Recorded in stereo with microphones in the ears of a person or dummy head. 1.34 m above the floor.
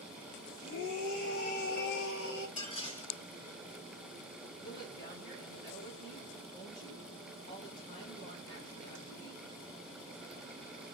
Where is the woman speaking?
65° left (ahead or behind), 3 m.